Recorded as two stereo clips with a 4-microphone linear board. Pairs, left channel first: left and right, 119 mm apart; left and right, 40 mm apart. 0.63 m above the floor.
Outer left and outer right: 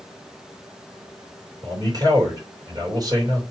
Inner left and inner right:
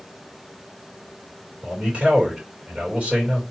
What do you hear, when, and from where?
1.6 s a man speaking: 30° right (ahead or behind), 2.5 m